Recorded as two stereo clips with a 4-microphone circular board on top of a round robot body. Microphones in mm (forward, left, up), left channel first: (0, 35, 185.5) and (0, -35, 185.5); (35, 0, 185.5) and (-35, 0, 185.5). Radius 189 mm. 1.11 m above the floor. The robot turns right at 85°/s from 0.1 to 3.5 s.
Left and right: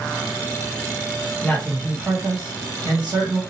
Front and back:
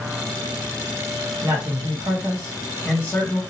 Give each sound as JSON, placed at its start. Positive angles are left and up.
{"t": 1.4, "sound": "a man speaking", "azimuth_deg": 150, "distance_m": 1.4}